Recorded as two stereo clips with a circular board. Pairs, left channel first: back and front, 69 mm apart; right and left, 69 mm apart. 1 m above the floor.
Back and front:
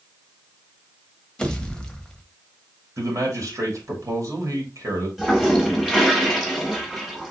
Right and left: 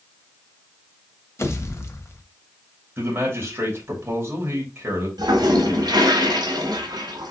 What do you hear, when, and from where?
1.4 s a pop: 110° right, 1.0 m
3.0 s a man speaking: 35° left, 2.5 m
5.2 s a toilet flushing: 85° left, 1.7 m